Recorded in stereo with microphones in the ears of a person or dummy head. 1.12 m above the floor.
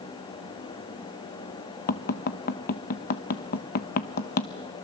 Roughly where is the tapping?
Left.